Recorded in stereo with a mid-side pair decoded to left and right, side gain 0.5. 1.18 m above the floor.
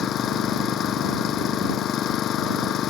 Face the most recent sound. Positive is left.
turn(degrees=60)